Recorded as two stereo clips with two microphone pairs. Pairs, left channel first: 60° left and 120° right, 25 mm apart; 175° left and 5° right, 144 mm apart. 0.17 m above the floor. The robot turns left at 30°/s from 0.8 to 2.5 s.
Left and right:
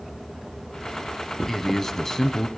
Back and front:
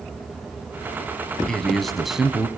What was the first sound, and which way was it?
A man speaking, 105° left.